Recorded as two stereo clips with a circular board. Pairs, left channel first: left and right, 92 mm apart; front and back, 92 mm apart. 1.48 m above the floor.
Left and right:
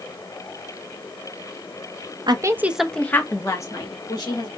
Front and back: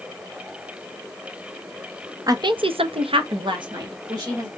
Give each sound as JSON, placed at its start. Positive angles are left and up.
{"t": 2.3, "sound": "a woman speaking", "azimuth_deg": -130, "distance_m": 0.5}